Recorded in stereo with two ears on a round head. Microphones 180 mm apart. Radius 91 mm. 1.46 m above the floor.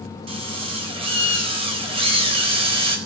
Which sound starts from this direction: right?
A drill, at 0.3 s.